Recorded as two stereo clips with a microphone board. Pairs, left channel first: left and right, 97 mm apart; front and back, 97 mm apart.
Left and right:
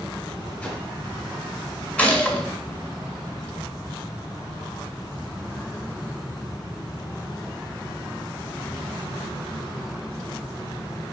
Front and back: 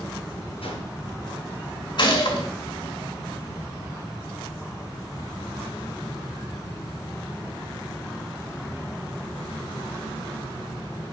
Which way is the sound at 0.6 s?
20° left.